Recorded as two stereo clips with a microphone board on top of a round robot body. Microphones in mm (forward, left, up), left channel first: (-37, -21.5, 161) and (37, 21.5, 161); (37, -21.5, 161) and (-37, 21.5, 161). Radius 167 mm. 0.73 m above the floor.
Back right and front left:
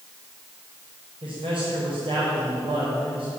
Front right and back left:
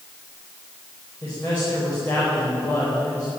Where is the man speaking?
40° left, 5 m.